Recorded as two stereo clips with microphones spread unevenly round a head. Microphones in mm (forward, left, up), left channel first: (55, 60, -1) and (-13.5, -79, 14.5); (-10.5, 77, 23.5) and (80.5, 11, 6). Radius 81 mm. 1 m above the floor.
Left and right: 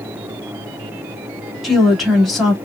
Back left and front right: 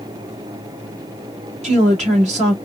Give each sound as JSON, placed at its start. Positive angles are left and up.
{"t": 1.6, "sound": "a woman speaking", "azimuth_deg": -25, "distance_m": 1.9}